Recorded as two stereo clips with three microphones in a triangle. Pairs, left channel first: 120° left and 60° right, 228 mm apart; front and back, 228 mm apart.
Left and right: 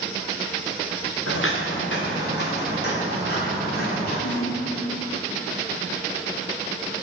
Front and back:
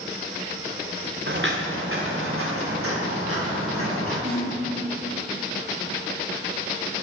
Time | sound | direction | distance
1.3 | footsteps | 140° left | 1.2 m
4.2 | a snare drum | 115° left | 1.9 m